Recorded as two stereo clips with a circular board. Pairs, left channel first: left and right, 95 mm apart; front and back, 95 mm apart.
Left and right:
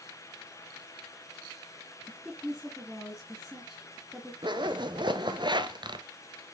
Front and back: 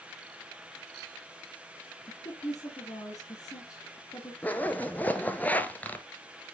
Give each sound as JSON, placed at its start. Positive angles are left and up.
{"t": 2.1, "sound": "a woman speaking", "azimuth_deg": -5, "distance_m": 1.9}
{"t": 4.4, "sound": "a zipper", "azimuth_deg": -70, "distance_m": 0.9}